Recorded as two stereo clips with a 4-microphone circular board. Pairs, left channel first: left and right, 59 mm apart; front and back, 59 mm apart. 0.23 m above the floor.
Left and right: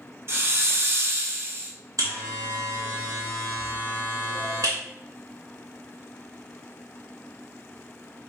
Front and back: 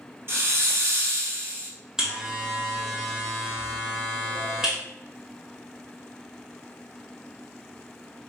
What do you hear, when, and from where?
0.3 s a hiss: 135° right, 0.8 m
2.0 s a buzzer: 100° right, 1.3 m